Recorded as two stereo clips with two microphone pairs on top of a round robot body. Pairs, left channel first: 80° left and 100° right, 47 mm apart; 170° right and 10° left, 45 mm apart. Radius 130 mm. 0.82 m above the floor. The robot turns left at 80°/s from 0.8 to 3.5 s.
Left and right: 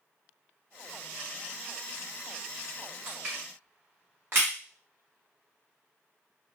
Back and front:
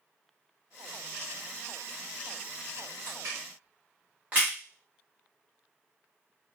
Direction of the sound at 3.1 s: 15° right.